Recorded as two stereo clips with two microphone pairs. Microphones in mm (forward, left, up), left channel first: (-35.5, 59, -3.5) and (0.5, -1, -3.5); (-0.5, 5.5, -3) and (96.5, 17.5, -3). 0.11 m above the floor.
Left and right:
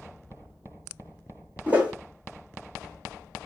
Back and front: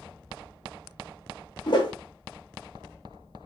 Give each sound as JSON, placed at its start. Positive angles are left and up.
{"t": 1.7, "sound": "a whoosh", "azimuth_deg": -130, "distance_m": 0.9}